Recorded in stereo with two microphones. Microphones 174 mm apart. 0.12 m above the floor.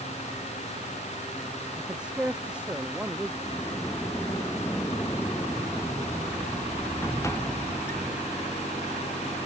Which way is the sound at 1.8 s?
5° right (ahead or behind).